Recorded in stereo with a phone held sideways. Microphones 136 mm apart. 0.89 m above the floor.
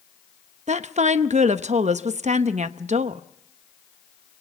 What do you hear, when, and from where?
0.7 s a woman speaking: 60° right (ahead or behind), 0.8 m